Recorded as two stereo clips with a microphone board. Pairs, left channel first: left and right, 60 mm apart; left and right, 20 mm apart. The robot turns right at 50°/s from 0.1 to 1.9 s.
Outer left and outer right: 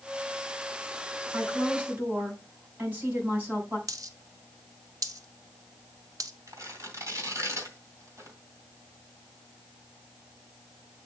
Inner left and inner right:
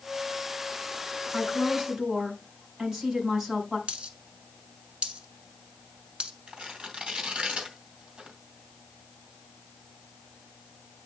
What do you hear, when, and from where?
1.3 s a woman speaking: 55° right (ahead or behind), 4.5 m; by 3.8 s 30° right (ahead or behind), 4.5 m
3.9 s a dropped coin: 65° right (ahead or behind), 1.0 m
6.5 s tearing paper: 55° right (ahead or behind), 2 m